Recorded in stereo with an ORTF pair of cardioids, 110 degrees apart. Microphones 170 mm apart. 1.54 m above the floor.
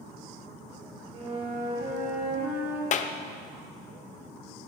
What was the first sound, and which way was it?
A flute, 40° right.